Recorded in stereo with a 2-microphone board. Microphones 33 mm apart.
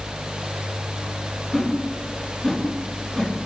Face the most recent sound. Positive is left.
turn(degrees=-10)  # may be behind; listen again after turning